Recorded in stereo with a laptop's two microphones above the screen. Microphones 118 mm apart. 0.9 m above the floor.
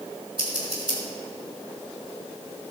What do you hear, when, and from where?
0.4 s scissors: 45° right (ahead or behind), 3 m